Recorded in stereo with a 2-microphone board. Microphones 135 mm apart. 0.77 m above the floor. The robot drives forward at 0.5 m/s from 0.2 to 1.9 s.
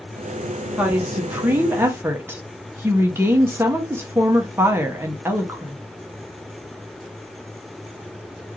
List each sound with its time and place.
0.8 s a woman speaking: 10° right (ahead or behind), 1.1 m; by 5.8 s 15° right (ahead or behind), 0.7 m